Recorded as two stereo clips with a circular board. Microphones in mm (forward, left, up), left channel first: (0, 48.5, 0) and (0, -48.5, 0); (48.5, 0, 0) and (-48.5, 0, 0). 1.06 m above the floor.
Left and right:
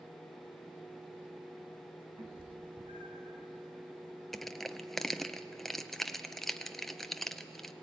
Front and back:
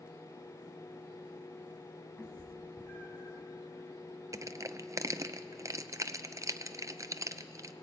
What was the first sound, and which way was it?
A cat meowing, 75° right.